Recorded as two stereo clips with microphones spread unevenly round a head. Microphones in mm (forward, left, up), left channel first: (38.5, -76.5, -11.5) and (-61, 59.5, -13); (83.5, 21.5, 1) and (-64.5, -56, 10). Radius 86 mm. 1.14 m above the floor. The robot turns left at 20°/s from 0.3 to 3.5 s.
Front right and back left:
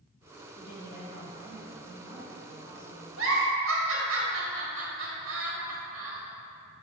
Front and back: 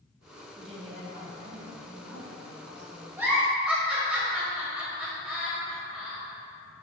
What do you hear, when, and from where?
0.6 s a woman speaking: 90° right, 1.8 m; by 3.1 s 140° right, 1.8 m
3.2 s a giggle: 130° left, 1.5 m; by 6.2 s 125° left, 1.5 m